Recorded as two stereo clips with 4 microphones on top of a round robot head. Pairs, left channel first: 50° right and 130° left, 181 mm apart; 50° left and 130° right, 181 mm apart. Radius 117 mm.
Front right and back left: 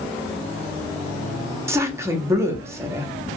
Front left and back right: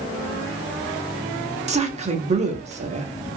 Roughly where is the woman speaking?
Behind.